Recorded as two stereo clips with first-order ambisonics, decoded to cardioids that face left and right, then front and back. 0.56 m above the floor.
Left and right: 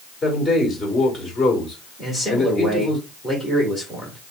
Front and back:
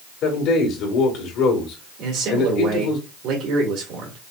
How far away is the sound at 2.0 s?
About 2 m.